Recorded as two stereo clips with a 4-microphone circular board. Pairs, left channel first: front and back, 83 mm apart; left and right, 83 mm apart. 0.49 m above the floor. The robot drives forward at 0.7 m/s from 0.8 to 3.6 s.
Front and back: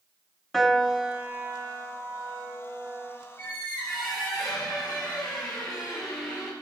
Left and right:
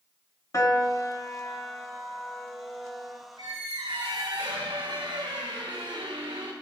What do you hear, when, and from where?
0.5 s a piano: 85° left, 0.8 m; by 3.2 s 160° left, 1.8 m
3.4 s a squeak: 60° right, 2.5 m